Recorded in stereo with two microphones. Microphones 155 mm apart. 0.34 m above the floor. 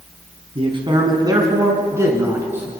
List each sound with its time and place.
0.6 s a man speaking: 35° right (ahead or behind), 3.5 m; by 2.7 s 10° right (ahead or behind), 6 m